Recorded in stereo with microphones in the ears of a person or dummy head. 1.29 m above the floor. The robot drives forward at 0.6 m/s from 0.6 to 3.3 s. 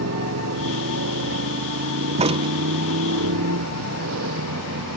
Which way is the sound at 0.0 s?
85° right.